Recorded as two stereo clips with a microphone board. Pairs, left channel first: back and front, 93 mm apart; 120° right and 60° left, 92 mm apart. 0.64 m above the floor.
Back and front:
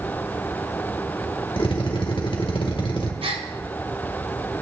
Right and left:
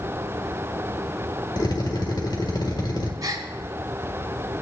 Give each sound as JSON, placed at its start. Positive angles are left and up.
{"t": 1.6, "sound": "a drill", "azimuth_deg": -160, "distance_m": 1.7}
{"t": 3.2, "sound": "a gasp", "azimuth_deg": 15, "distance_m": 1.0}